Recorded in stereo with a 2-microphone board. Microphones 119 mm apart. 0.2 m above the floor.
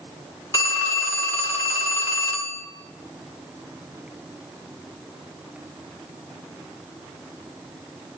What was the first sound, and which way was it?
A phone ringing, 20° left (ahead or behind).